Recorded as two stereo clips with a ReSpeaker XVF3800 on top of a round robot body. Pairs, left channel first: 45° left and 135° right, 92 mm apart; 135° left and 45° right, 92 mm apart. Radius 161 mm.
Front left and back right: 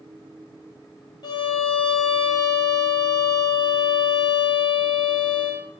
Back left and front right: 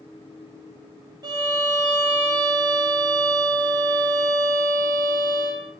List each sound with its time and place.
1.2 s a violin: 5° left, 1.3 m